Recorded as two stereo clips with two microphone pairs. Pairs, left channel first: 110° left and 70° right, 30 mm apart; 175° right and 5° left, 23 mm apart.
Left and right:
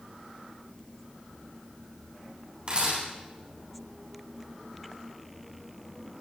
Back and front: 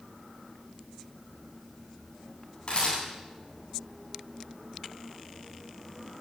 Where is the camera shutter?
130° right, 10 m.